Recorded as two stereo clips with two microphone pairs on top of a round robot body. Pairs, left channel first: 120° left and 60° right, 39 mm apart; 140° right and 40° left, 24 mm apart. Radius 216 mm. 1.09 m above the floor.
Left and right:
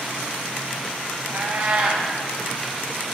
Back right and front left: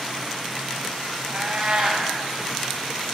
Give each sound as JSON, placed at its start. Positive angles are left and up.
{"t": 1.3, "sound": "a cat meowing", "azimuth_deg": -10, "distance_m": 0.5}